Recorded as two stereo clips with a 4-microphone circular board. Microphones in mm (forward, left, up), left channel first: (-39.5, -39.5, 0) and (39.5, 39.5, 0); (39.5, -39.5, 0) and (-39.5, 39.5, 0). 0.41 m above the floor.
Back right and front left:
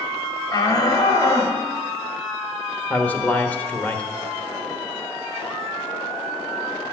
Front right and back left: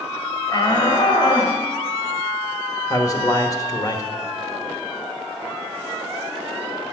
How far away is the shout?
About 1.7 m.